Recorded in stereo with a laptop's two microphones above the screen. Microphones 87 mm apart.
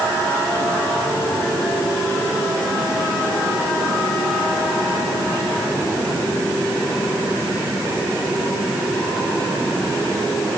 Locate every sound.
Only background noise.